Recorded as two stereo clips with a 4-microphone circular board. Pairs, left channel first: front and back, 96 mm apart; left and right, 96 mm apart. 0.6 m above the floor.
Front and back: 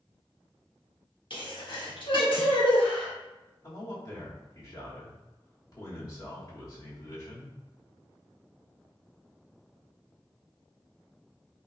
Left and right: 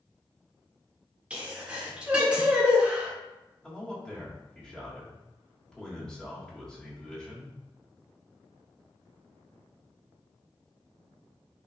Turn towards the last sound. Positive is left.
turn(degrees=15)